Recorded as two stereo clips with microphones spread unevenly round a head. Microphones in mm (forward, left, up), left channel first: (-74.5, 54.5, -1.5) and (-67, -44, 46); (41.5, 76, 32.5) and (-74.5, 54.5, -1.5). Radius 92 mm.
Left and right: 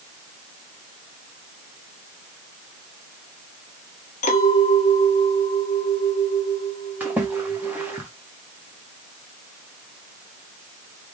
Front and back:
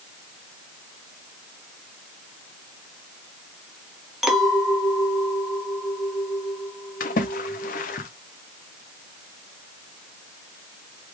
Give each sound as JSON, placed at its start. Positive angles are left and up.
{"t": 4.2, "sound": "a clink", "azimuth_deg": 90, "distance_m": 1.5}
{"t": 7.0, "sound": "a splash", "azimuth_deg": -5, "distance_m": 0.7}